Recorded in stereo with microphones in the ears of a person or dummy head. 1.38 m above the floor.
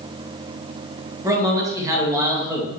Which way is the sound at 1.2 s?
15° right (ahead or behind).